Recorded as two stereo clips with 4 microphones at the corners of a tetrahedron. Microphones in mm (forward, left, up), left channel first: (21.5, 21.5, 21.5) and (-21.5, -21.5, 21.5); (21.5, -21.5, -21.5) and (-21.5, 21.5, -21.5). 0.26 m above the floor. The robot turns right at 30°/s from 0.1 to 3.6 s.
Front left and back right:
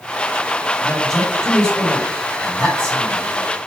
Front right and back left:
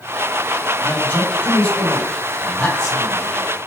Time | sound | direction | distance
0.8 | a man speaking | 50° right | 1.6 m